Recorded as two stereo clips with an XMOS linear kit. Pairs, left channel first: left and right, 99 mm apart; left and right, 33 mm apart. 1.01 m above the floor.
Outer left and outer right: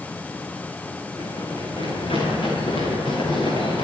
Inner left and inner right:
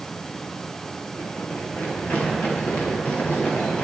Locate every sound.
1.2 s running footsteps: 60° left (ahead or behind), 8 m; by 3.8 s 65° left (ahead or behind), 10.5 m